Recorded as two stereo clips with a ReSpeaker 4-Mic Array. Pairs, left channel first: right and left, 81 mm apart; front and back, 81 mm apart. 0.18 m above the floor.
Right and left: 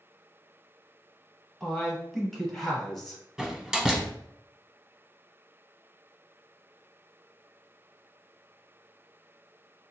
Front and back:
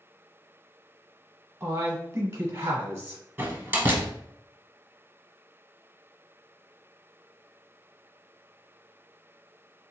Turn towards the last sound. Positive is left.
turn(degrees=160)